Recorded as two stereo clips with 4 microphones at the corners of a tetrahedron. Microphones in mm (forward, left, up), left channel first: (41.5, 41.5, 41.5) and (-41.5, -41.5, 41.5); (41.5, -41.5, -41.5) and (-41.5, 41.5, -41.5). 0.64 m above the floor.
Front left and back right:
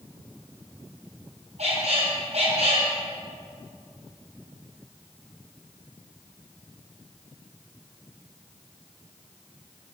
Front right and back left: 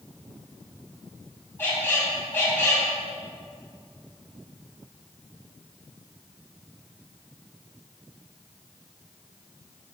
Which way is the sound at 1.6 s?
115° right.